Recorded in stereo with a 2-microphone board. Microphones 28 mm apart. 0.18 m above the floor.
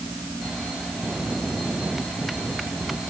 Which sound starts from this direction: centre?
A bell, at 1.0 s.